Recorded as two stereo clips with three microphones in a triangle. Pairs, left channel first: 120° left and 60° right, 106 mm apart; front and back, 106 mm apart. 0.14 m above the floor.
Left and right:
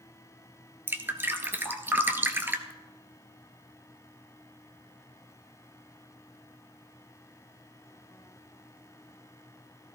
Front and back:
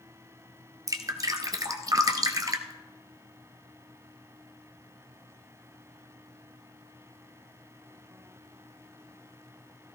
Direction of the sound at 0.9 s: 130° right.